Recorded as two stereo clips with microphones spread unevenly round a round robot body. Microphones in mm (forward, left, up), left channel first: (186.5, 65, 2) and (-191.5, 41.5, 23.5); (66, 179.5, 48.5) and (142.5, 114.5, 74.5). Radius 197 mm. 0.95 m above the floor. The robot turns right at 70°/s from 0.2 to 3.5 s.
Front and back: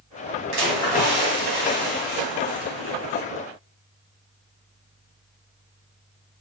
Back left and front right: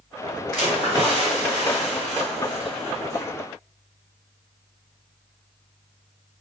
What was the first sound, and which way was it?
A splash, 145° right.